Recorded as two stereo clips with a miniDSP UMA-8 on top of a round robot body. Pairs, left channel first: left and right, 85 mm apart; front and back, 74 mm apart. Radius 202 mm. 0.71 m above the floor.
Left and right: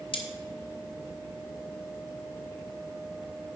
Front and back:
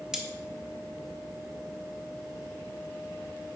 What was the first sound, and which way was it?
Cutlery clinking, 100° left.